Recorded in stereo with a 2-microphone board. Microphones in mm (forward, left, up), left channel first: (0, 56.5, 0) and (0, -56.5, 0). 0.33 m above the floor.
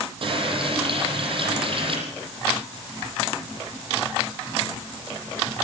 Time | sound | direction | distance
0.2 | a running tap | 50° right (ahead or behind) | 9 m